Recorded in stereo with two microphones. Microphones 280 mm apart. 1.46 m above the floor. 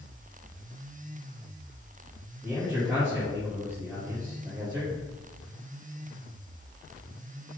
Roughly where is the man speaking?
Centre.